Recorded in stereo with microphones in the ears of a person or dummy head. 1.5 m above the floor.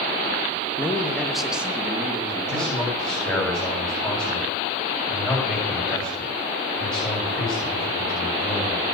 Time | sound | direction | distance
0.8 | a man speaking | 15° left (ahead or behind) | 2.5 m
2.5 | a man speaking | centre (ahead or behind) | 7.5 m